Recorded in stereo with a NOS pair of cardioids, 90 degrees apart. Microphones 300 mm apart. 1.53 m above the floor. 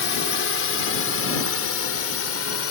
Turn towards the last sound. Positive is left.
turn(degrees=50)